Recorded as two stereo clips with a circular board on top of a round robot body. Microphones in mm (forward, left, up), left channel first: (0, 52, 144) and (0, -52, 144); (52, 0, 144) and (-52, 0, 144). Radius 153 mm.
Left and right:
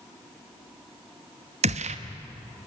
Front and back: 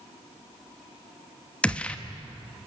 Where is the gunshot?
80° right, 1.1 m.